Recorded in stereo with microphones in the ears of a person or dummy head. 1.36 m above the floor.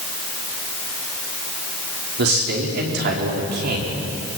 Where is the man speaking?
55° right (ahead or behind), 4.5 m.